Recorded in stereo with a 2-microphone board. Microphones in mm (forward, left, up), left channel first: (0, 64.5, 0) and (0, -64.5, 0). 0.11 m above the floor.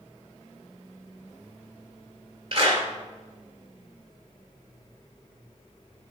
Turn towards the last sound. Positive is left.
turn(degrees=-45)  # may be behind; listen again after turning